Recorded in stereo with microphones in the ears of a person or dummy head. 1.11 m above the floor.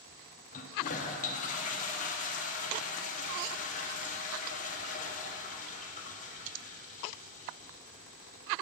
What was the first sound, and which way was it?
A toilet flushing, 35° left (ahead or behind).